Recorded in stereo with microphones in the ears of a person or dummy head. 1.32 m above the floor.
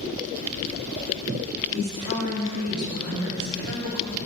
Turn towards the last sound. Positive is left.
turn(degrees=-80)